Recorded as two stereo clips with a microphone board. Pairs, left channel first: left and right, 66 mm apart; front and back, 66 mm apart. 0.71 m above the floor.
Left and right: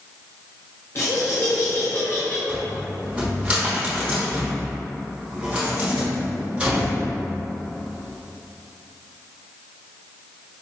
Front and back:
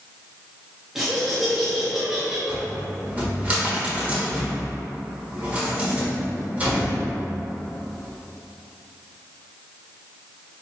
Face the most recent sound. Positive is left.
turn(degrees=-140)